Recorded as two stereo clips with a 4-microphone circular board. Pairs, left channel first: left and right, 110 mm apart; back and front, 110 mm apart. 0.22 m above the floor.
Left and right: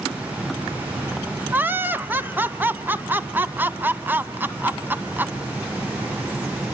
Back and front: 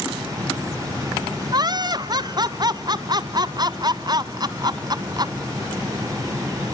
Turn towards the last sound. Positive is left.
turn(degrees=-25)